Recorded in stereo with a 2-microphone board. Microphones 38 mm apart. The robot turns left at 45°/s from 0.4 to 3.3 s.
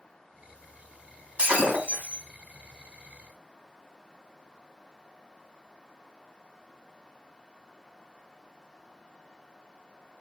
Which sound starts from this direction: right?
Breaking glass, at 1.4 s.